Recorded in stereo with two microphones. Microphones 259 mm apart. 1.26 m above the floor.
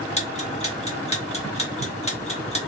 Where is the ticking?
25° left (ahead or behind), 1.5 m.